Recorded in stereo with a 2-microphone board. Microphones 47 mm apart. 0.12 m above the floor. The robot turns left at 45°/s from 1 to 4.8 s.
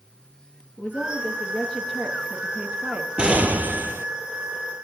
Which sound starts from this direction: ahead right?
An explosion, at 3.2 s.